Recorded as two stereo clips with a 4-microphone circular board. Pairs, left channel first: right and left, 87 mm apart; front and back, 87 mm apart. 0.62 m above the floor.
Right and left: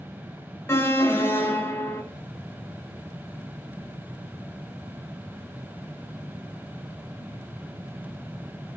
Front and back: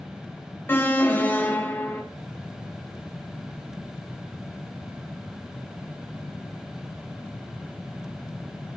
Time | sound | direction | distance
0.7 | an alarm | 50° right | 1.9 m